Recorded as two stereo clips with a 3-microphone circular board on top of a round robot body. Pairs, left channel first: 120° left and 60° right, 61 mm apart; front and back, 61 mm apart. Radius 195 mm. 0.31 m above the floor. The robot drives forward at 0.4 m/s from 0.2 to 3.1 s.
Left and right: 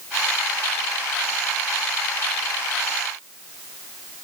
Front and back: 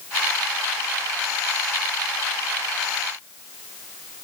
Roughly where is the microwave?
No microwave in this recording.